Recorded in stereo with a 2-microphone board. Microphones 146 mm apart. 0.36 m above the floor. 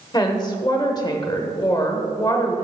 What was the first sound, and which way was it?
A woman speaking, 30° left (ahead or behind).